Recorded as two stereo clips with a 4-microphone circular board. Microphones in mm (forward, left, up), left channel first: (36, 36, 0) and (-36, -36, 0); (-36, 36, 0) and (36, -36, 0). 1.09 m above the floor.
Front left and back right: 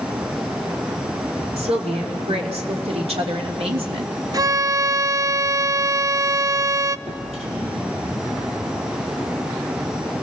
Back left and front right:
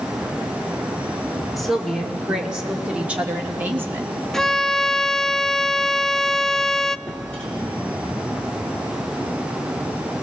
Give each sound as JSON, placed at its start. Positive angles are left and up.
{"t": 1.6, "sound": "a woman speaking", "azimuth_deg": -135, "distance_m": 3.0}
{"t": 4.3, "sound": "a violin", "azimuth_deg": -140, "distance_m": 0.5}
{"t": 7.1, "sound": "a drawer", "azimuth_deg": -145, "distance_m": 6.5}